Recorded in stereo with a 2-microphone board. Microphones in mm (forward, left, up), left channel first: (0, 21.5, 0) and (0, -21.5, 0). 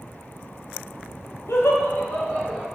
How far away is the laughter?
About 0.6 m.